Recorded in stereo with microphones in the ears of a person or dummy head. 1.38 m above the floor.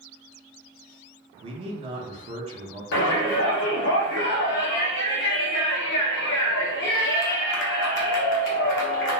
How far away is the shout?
About 0.8 m.